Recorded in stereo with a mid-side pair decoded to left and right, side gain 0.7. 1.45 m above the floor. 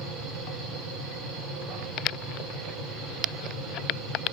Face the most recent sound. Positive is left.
turn(degrees=-70)